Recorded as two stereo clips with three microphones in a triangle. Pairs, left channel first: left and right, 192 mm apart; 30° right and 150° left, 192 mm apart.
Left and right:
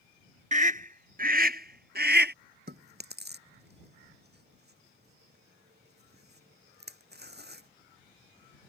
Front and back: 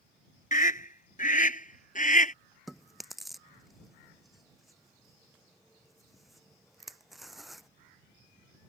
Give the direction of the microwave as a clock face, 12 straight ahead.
I don't hear a microwave.